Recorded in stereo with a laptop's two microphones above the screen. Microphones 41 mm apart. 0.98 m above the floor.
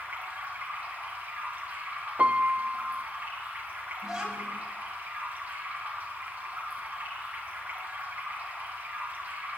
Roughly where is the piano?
Right.